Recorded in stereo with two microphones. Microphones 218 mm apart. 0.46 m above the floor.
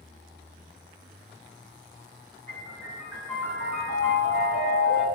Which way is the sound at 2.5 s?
75° left (ahead or behind).